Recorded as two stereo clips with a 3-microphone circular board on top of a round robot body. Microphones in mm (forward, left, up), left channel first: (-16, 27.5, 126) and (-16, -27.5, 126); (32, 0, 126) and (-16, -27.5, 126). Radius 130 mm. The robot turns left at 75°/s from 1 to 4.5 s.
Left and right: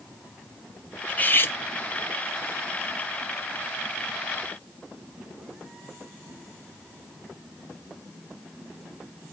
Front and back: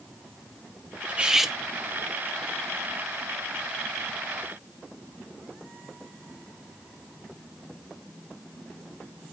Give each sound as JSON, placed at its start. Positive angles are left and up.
{"t": 1.1, "sound": "cutlery clinking", "azimuth_deg": 150, "distance_m": 0.9}